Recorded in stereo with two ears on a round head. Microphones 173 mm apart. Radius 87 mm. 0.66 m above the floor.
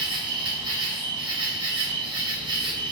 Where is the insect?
25° right (ahead or behind), 0.8 m.